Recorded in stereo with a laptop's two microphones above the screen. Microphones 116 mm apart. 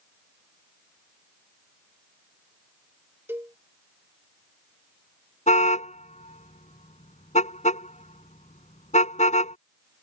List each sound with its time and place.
3.3 s a cowbell: 20° right (ahead or behind)
5.5 s a car horn: 80° left